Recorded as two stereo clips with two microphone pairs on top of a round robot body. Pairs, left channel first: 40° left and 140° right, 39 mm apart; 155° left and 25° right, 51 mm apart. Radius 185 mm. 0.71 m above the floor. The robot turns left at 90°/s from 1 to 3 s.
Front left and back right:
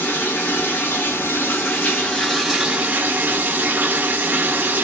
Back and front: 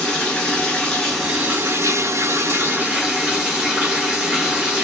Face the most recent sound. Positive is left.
turn(degrees=-105)